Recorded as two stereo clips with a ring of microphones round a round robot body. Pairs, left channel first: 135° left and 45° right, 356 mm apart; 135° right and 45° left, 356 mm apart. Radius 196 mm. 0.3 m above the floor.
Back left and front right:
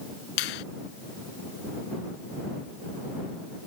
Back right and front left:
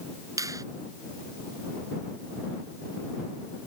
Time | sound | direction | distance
0.4 | a finger snap | 125° left | ?